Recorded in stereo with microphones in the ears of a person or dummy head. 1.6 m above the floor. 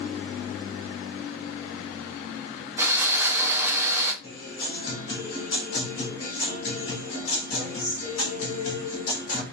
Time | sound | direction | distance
2.8 | sawing | 15° right (ahead or behind) | 0.5 m
4.2 | a guitar | 80° left | 1.2 m